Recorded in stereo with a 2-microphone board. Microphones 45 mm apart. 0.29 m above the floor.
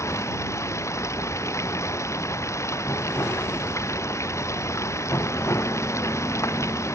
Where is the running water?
85° left.